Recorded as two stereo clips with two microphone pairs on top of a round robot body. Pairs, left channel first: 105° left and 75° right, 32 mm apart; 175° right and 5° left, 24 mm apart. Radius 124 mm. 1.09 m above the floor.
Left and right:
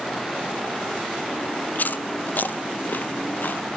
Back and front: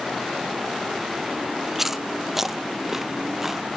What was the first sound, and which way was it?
Chewing, 85° left.